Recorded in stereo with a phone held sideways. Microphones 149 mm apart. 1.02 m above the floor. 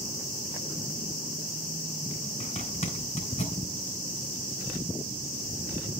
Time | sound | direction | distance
2.4 | a zipper | 50° left (ahead or behind) | 3.5 m